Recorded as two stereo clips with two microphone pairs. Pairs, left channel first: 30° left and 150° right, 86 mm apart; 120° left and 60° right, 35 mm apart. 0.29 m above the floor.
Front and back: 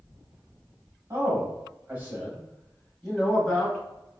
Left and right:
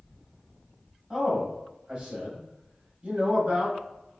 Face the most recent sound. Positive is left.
turn(degrees=-50)